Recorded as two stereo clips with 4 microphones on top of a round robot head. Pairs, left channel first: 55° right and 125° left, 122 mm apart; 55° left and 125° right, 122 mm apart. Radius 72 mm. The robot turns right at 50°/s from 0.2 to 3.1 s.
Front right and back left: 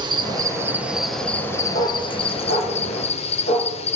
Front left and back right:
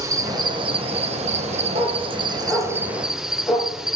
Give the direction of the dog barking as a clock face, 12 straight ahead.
3 o'clock.